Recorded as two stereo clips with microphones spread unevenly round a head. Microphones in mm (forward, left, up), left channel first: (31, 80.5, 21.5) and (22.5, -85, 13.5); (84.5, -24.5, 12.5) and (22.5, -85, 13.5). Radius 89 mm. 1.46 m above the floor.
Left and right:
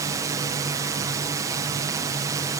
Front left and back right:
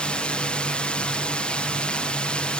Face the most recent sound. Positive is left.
turn(degrees=-30)